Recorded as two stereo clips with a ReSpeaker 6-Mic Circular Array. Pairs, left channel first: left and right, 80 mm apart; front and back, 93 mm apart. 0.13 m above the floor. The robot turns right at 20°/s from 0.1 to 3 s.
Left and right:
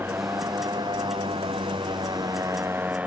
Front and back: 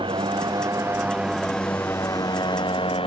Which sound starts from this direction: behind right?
A motorcycle, at 0.0 s.